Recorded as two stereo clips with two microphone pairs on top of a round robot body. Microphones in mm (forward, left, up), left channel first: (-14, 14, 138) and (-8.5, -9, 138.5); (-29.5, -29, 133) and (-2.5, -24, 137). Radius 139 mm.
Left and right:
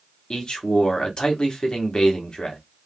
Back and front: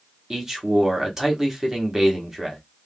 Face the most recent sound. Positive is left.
turn(degrees=90)